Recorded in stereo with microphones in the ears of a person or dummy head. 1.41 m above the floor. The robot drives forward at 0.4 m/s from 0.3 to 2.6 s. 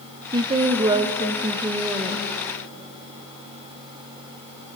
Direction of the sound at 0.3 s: 20° right (ahead or behind).